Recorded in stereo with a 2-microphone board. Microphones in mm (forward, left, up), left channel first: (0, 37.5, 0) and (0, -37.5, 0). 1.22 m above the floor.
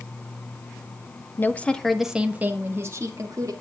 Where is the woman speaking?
30° left (ahead or behind), 1.4 m; by 3.5 s 50° right (ahead or behind), 2.5 m.